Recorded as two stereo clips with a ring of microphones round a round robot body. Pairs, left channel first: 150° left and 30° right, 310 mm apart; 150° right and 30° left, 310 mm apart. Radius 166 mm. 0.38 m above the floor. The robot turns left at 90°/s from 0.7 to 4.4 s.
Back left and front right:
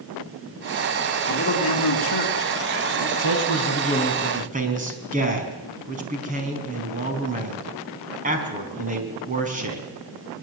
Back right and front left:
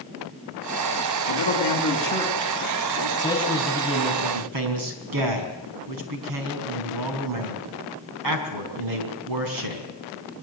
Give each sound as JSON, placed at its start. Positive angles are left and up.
{"t": 1.3, "sound": "a man speaking", "azimuth_deg": -135, "distance_m": 5.0}
{"t": 3.2, "sound": "a man speaking", "azimuth_deg": 145, "distance_m": 5.0}